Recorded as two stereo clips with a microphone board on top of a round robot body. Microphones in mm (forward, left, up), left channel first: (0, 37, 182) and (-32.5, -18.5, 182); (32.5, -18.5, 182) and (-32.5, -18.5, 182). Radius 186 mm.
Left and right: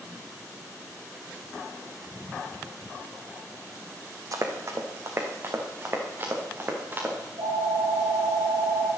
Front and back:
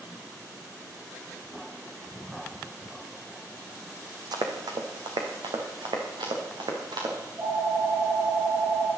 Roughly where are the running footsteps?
Behind.